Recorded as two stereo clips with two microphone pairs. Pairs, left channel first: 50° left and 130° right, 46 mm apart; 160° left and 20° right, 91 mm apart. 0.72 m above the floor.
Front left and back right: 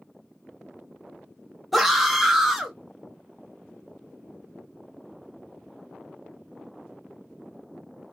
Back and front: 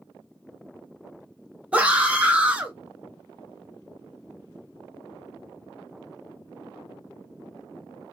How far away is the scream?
About 0.7 m.